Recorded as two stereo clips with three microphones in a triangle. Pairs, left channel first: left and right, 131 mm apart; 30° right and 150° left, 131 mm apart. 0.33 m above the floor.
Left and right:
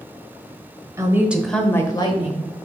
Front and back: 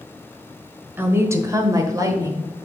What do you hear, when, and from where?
1.0 s a woman speaking: 145° right, 1.3 m; by 2.5 s 95° left, 1.6 m